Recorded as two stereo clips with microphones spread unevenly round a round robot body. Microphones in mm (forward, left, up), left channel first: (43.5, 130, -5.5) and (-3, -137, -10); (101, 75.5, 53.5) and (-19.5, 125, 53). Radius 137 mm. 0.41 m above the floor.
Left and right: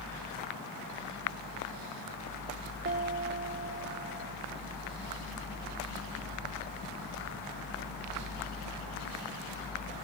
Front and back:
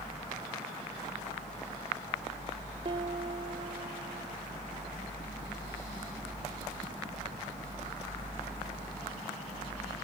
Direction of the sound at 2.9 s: 150° right.